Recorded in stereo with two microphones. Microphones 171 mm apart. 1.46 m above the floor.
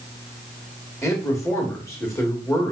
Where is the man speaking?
15° left (ahead or behind), 2.5 m.